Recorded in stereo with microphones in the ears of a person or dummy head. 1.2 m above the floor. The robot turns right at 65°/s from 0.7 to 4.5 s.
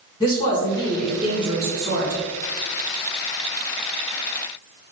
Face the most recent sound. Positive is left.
turn(degrees=45)